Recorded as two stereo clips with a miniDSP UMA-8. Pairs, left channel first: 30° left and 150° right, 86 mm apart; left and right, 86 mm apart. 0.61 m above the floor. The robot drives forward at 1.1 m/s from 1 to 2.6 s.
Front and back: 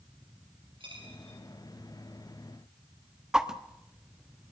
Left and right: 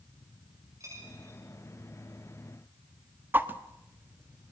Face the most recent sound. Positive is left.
turn(degrees=-80)